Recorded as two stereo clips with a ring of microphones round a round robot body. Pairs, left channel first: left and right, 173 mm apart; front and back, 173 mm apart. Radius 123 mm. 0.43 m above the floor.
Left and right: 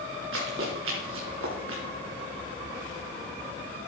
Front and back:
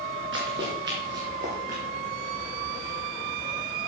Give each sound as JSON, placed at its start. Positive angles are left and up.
{"t": 0.3, "sound": "running footsteps", "azimuth_deg": -135, "distance_m": 3.0}